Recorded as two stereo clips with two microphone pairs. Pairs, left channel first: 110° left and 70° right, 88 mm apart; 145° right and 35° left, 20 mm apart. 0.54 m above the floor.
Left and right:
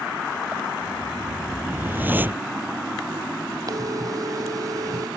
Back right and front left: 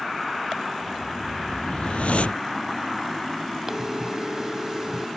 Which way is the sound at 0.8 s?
135° right.